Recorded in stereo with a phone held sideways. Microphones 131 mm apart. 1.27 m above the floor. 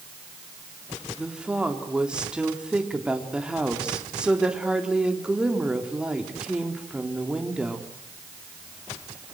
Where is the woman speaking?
5° right (ahead or behind), 3.5 m.